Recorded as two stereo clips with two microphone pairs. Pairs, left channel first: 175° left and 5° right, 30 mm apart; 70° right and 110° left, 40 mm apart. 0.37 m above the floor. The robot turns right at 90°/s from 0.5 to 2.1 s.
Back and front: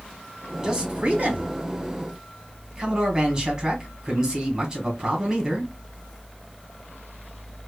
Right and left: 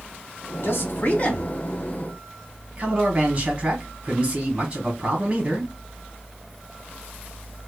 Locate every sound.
0.6 s a man speaking: 85° right, 1.5 m; by 5.7 s 50° left, 1.5 m